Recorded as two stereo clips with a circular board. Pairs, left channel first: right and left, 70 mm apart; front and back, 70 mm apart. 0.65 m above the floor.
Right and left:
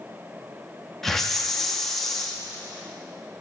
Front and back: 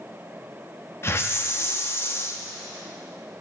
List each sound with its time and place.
1.0 s a hiss: 10° right, 0.5 m